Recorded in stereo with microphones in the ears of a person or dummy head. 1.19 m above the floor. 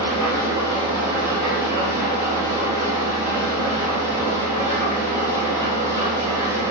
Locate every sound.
0.0 s an engine running: 20° right (ahead or behind), 0.8 m